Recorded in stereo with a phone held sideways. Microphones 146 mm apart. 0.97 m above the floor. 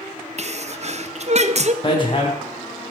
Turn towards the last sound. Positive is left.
turn(degrees=35)  # may be behind; listen again after turning